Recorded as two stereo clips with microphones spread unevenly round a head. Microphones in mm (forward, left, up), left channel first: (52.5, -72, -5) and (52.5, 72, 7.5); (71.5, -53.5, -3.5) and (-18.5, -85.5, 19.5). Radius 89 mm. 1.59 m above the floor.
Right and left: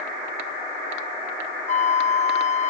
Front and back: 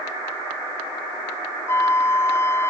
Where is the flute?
45° right.